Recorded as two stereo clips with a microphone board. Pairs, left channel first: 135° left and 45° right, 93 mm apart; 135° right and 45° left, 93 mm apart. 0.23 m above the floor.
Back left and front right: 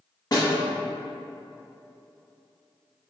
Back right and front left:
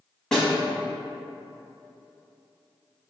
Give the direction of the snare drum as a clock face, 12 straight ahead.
7 o'clock.